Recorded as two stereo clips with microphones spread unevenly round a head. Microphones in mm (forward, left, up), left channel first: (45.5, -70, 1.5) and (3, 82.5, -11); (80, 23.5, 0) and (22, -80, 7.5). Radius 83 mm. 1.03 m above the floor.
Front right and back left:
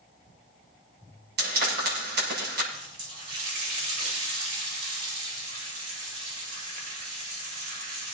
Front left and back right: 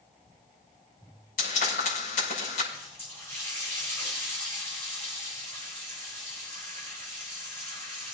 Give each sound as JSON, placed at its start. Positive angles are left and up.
{"t": 1.4, "sound": "frying", "azimuth_deg": 85, "distance_m": 6.0}
{"t": 2.7, "sound": "a running tap", "azimuth_deg": 135, "distance_m": 3.0}